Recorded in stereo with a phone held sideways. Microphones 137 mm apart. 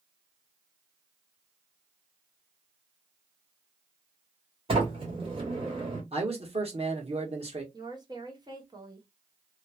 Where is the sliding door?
40° right (ahead or behind), 1.4 m.